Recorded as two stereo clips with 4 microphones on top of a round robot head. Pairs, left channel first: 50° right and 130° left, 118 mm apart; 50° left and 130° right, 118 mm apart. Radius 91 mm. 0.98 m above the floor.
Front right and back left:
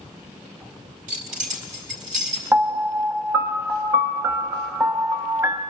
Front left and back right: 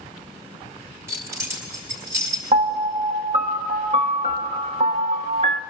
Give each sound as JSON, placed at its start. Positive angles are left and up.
{"t": 1.1, "sound": "keys jangling", "azimuth_deg": 160, "distance_m": 1.7}
{"t": 2.5, "sound": "a piano", "azimuth_deg": -160, "distance_m": 1.0}